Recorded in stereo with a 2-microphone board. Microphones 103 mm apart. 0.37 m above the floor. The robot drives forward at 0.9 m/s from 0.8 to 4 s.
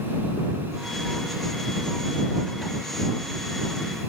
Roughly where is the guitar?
No guitar in this recording.